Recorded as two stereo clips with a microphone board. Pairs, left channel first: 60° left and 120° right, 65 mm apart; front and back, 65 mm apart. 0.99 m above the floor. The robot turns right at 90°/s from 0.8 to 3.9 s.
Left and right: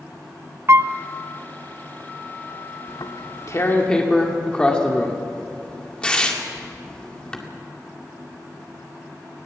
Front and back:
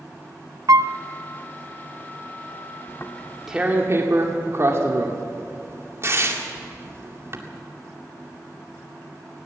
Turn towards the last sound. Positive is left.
turn(degrees=135)